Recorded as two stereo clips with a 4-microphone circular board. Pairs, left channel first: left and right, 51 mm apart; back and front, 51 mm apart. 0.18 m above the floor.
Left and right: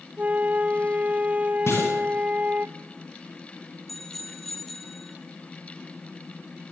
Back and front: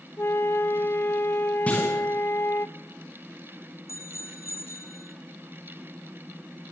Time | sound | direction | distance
0.2 | a flute | 145° right | 1.0 m
1.7 | a clunk | 120° left | 8 m
3.9 | a bicycle bell | straight behind | 3.5 m